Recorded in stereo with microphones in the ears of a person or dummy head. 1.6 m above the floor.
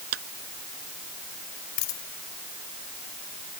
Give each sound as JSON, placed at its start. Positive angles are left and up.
{"t": 0.1, "sound": "a clap", "side_deg": -65}
{"t": 1.8, "sound": "a dropped coin", "side_deg": 50}